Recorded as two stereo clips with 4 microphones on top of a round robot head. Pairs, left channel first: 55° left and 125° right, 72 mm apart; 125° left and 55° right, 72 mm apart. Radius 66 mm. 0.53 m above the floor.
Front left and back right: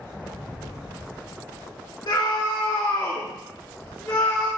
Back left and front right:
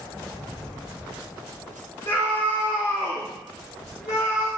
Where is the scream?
75° left, 1.8 m; by 4.5 s 130° left, 2.5 m.